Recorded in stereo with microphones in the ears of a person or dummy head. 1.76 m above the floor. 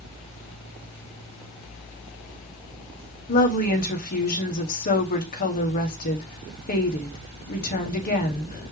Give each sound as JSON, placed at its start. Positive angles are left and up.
{"t": 3.3, "sound": "a woman speaking", "side_deg": 45, "distance_m": 1.4}